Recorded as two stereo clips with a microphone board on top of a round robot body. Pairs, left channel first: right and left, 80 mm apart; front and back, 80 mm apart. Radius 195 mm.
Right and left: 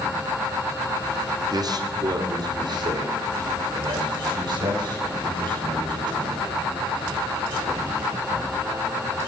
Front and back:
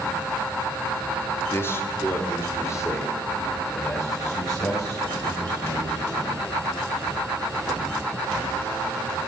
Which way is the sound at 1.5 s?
60° left.